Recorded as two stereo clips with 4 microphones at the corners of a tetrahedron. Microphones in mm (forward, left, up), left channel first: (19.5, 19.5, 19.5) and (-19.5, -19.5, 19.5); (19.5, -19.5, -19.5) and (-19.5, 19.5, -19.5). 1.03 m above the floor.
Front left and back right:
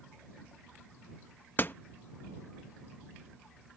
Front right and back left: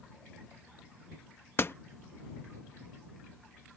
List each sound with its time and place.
1.6 s a door slam: 5° right